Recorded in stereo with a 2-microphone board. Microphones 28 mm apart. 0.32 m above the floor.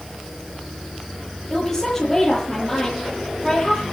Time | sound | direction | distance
1.5 | a woman speaking | 15° left (ahead or behind) | 8 m